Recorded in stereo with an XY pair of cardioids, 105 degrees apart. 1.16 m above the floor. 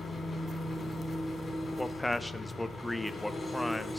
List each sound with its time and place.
0.0 s an engine running: 30° left, 3 m
1.8 s a man speaking: 5° left, 0.7 m